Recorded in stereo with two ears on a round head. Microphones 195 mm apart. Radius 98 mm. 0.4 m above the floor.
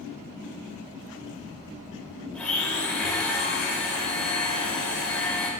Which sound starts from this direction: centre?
A blender, at 2.3 s.